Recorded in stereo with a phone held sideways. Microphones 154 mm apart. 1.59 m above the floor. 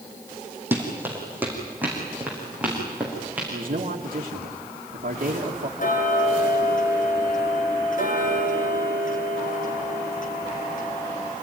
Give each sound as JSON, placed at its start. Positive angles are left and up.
{"t": 0.7, "sound": "running footsteps", "side_deg": -10, "distance_m": 4.5}
{"t": 3.5, "sound": "a man speaking", "side_deg": -65, "distance_m": 2.0}
{"t": 5.8, "sound": "ticking", "side_deg": 60, "distance_m": 4.0}